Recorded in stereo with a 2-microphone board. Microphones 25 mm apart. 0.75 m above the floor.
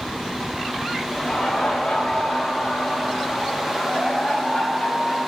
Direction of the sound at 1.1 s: 45° left (ahead or behind).